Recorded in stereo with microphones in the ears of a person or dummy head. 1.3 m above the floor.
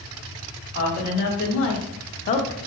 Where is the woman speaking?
60° left (ahead or behind), 1.9 m; by 2.6 s 15° left (ahead or behind), 0.7 m.